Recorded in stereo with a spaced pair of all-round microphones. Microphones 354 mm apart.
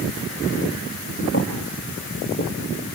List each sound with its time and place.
1.3 s footsteps: 35° left (ahead or behind), 2.0 m; by 2.5 s 30° left (ahead or behind), 3 m